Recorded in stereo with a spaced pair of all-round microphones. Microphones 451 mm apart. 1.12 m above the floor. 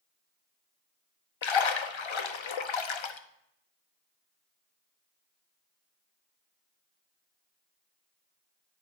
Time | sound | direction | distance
1.4 | a splash | 80° left | 0.6 m